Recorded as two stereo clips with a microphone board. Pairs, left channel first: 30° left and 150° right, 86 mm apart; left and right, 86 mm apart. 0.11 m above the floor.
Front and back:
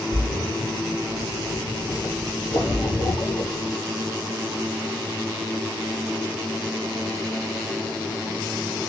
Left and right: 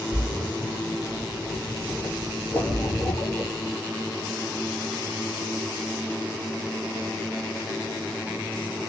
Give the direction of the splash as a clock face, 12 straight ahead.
10 o'clock.